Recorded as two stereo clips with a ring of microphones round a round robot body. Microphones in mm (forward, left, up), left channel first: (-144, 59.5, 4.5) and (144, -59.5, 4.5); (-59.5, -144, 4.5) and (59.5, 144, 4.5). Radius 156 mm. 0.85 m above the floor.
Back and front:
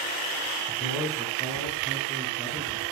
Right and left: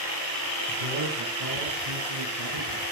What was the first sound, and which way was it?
A man speaking, 70° left.